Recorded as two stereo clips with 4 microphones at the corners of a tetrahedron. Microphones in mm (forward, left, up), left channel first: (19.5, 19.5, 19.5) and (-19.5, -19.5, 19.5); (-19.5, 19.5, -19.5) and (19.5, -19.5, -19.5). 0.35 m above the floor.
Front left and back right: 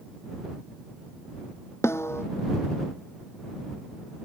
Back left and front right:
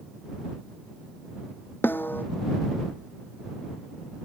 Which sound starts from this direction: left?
A snare drum, at 1.8 s.